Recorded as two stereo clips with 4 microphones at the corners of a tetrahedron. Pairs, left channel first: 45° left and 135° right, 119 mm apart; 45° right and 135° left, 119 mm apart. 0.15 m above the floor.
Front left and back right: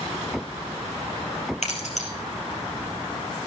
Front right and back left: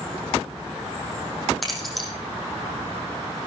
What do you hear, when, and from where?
1.6 s keys jangling: 45° left, 3 m